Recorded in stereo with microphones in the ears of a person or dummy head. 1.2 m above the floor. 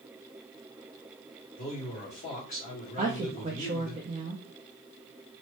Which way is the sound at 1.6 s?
40° left (ahead or behind).